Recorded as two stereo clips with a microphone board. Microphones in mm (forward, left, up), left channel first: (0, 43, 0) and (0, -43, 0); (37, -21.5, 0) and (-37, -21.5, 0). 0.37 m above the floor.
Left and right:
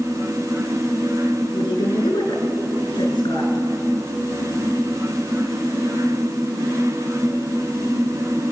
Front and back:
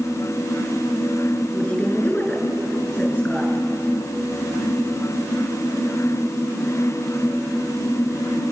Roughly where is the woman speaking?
Ahead left.